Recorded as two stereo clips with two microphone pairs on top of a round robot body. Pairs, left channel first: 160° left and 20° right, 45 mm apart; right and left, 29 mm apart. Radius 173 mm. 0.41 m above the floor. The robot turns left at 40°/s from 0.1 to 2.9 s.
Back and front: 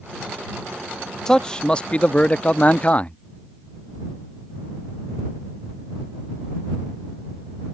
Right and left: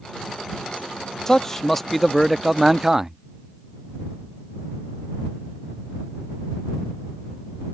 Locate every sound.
1.3 s a man speaking: 145° right; by 3.2 s 150° left